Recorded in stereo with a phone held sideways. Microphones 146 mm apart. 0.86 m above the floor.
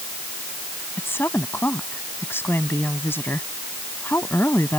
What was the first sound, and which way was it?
A woman speaking, 15° left (ahead or behind).